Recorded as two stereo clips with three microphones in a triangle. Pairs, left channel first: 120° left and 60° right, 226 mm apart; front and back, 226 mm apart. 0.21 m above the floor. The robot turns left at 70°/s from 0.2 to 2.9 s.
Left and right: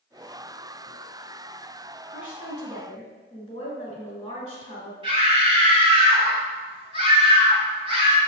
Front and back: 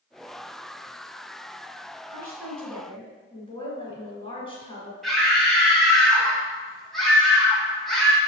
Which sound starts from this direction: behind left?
A woman speaking, at 2.1 s.